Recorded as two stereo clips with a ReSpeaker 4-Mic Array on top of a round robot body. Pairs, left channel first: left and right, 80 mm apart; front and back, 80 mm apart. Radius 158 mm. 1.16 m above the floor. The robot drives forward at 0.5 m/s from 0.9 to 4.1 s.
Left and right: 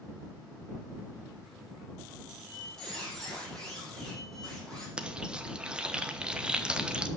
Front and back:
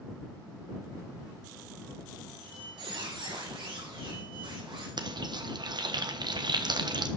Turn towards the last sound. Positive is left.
turn(degrees=-165)